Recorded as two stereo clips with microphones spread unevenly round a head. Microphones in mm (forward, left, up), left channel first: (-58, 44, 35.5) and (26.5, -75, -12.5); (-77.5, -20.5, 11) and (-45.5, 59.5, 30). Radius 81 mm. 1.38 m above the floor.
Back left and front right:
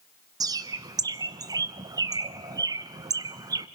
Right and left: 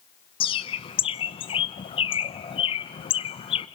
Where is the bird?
130° right, 0.6 m.